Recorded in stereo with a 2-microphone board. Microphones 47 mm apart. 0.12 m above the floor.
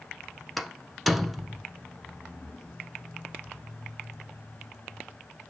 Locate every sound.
0.6 s a door slam: centre (ahead or behind), 1.1 m